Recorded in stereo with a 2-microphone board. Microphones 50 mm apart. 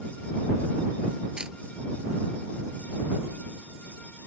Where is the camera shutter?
15° right (ahead or behind).